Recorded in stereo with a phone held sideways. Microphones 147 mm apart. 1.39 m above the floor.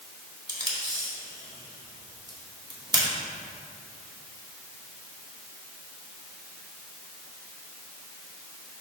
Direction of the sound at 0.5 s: 30° right (ahead or behind).